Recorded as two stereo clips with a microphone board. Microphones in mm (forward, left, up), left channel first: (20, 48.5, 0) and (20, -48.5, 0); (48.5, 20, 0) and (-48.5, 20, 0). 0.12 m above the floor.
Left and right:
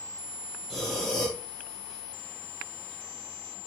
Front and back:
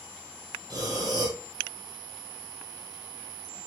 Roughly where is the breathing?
Behind.